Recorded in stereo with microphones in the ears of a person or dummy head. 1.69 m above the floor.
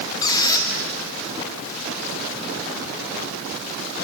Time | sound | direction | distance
0.2 | a squeak | 20° left (ahead or behind) | 2 m